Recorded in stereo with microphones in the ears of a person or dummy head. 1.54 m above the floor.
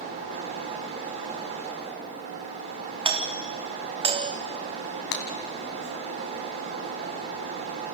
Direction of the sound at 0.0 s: 35° right (ahead or behind).